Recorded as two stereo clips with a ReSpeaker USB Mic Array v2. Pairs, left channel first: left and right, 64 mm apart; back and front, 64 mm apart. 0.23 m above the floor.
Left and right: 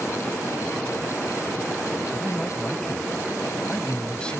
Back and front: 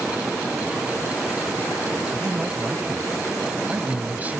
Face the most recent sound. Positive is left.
turn(degrees=30)